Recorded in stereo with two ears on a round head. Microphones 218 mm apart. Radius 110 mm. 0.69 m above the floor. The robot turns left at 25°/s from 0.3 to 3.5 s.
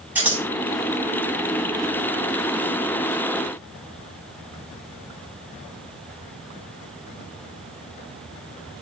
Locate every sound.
0.1 s scissors: 5° right (ahead or behind), 6.5 m; by 0.4 s 10° right (ahead or behind), 6.5 m